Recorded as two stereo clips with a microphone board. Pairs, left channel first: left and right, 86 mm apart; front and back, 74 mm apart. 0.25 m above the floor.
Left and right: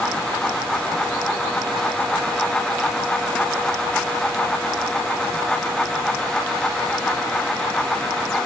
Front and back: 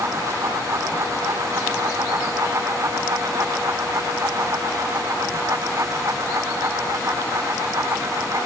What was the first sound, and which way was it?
Only background noise.